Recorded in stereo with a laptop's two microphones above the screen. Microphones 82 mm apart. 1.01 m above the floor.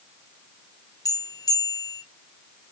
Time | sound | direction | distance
1.1 | a bell | 50° left (ahead or behind) | 0.8 m